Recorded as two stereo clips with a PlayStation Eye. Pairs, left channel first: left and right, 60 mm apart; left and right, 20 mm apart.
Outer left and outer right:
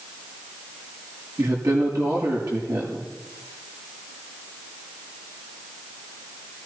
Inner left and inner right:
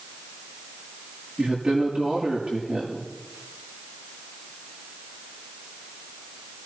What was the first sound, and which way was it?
A woman speaking, 75° right (ahead or behind).